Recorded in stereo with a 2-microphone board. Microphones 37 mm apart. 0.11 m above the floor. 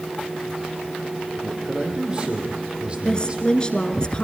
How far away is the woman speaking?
About 1.2 m.